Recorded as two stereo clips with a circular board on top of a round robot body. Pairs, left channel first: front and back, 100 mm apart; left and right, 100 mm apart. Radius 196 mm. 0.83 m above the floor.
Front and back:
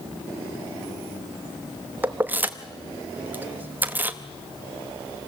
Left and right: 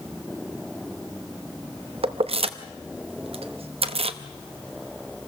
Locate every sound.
2.0 s keys jangling: 110° right, 1.1 m